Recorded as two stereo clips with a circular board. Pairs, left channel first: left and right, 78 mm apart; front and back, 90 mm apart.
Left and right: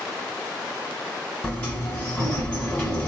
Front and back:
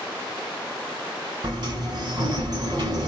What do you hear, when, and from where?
1.4 s a sliding door: 150° left, 1.4 m